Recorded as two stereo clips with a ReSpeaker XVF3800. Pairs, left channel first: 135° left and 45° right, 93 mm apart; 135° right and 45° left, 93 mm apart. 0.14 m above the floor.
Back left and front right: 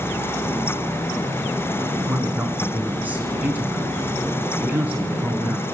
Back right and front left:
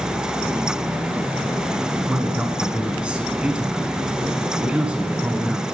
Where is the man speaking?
10° right, 1.1 m.